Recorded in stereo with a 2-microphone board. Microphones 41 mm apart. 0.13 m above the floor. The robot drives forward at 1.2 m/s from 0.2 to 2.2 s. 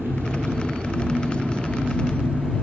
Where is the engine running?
60° right (ahead or behind), 3.5 m; by 2.6 s 40° right (ahead or behind), 5 m.